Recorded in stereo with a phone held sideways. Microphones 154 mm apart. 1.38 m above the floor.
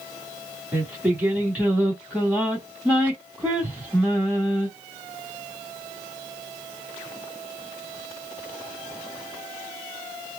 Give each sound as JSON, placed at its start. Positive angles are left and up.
{"t": 0.7, "sound": "singing", "side_deg": -10, "distance_m": 2.5}